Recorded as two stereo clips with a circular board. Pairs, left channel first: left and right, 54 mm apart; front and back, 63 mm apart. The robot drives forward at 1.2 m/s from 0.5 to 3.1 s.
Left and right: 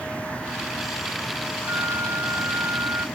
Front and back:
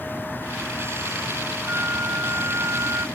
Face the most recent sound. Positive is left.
turn(degrees=-130)